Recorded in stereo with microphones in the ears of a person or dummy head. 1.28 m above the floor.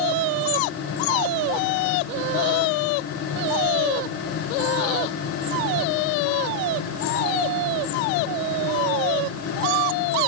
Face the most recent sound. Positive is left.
No sound to turn to.